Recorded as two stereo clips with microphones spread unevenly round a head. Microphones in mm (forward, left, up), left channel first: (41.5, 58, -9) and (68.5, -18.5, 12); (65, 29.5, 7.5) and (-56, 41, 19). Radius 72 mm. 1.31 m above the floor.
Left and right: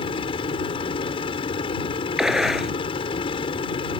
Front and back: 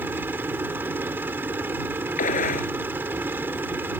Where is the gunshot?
10° left.